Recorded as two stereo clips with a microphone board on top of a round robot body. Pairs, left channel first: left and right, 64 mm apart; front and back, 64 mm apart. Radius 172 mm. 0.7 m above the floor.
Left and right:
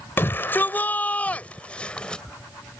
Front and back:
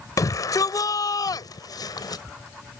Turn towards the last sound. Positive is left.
turn(degrees=10)